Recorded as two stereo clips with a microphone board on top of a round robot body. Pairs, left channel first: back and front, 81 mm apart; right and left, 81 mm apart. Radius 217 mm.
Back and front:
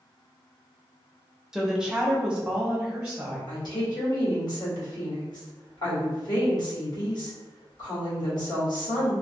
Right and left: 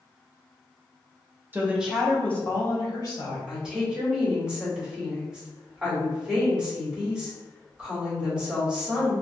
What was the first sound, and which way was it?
A woman speaking, 75° left.